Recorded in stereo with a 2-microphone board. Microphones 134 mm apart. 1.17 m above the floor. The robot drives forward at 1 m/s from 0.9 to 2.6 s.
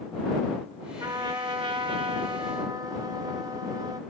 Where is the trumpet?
25° right (ahead or behind), 1.2 m; by 4.0 s 30° right (ahead or behind), 1.1 m.